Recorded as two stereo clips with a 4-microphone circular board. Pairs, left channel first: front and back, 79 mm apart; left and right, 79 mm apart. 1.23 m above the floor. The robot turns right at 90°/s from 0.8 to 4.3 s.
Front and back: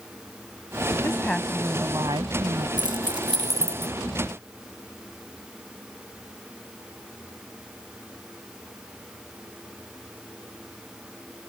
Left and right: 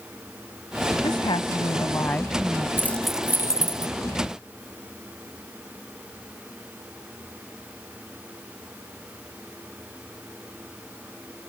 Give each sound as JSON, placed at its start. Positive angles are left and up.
{"t": 1.0, "sound": "a woman speaking", "azimuth_deg": 55}
{"t": 2.8, "sound": "keys jangling", "azimuth_deg": 150}